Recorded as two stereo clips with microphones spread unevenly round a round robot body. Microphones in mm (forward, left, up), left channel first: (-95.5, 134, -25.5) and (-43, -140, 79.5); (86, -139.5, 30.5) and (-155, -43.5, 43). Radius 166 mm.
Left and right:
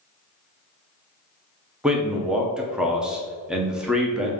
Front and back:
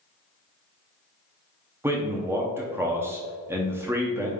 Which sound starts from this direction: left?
A man speaking, at 1.8 s.